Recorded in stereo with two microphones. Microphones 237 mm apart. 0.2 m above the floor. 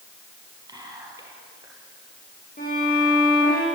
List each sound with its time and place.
0.7 s whispering: 15° right (ahead or behind), 5.5 m
2.6 s a violin: 40° left (ahead or behind), 8 m